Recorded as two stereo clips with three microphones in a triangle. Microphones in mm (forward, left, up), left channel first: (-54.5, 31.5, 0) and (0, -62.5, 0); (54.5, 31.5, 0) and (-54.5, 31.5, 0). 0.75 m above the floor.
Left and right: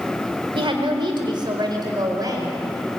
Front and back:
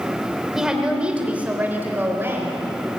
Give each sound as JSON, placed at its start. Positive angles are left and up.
{"t": 0.6, "sound": "a woman speaking", "azimuth_deg": -95, "distance_m": 3.5}